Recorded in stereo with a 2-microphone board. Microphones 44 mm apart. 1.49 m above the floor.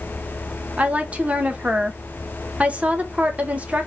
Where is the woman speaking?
35° right (ahead or behind), 1.0 m.